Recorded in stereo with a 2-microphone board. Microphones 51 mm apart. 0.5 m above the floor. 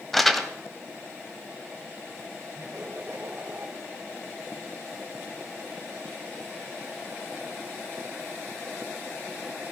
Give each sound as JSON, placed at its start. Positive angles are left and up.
{"t": 0.1, "sound": "crumpling", "side_deg": 0, "distance_m": 1.5}
{"t": 2.5, "sound": "laughter", "side_deg": -30, "distance_m": 2.5}